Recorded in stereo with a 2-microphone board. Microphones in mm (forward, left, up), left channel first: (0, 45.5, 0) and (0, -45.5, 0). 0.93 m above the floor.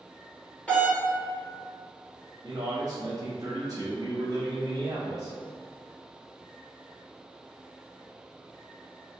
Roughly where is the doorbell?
Centre.